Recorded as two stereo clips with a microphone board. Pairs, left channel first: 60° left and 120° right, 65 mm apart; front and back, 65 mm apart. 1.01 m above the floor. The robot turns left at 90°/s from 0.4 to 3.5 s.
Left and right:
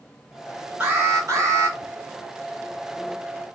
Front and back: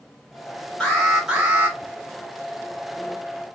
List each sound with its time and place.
0.8 s an alarm: 65° right, 2.0 m; by 1.8 s 150° right, 2.0 m